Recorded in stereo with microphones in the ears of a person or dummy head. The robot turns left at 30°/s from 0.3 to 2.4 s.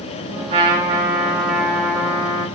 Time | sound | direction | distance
0.5 | a trumpet | 150° right | 1.3 m